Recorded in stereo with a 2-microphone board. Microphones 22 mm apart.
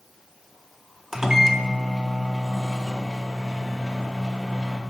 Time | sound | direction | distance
1.1 | a microwave | 20° right (ahead or behind) | 0.7 m